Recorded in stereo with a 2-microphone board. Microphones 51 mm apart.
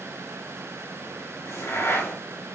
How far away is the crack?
About 5 m.